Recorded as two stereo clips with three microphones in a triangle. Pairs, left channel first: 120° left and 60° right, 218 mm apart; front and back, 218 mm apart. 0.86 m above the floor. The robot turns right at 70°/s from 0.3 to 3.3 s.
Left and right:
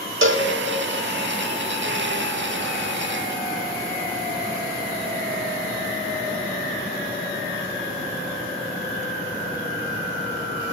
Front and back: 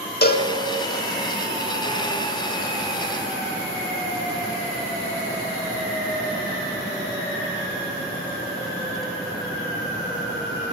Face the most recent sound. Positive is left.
turn(degrees=170)